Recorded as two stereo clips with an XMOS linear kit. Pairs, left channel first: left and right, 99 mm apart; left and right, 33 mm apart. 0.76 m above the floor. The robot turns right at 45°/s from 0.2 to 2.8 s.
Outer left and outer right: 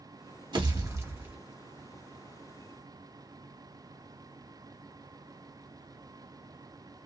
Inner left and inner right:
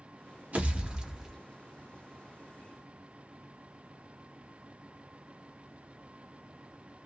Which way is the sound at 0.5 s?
50° right.